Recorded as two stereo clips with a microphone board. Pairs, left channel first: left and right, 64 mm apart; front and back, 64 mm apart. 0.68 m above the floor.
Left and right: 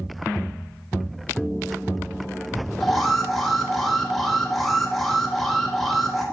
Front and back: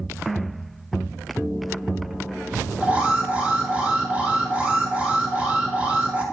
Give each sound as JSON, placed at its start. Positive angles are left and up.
{"t": 2.8, "sound": "an alarm", "azimuth_deg": 175, "distance_m": 1.2}